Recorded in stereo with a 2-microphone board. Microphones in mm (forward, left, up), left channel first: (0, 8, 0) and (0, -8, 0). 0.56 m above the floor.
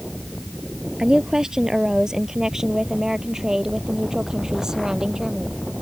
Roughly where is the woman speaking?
Right.